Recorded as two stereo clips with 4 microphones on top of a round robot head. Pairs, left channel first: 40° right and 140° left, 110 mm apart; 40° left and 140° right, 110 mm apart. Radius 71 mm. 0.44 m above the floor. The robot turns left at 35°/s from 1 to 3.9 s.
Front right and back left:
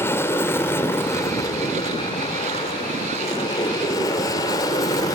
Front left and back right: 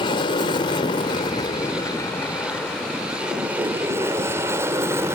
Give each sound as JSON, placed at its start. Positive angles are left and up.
{"t": 0.0, "sound": "an aircraft", "azimuth_deg": 20}